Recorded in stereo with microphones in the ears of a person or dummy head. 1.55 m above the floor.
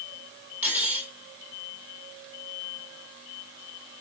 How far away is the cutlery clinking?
About 3 m.